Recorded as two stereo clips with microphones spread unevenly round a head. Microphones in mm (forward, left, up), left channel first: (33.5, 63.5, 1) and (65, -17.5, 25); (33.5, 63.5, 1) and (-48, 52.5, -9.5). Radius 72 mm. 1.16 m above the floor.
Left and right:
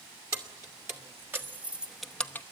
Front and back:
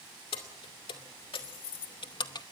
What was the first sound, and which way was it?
Keys jangling, 15° right.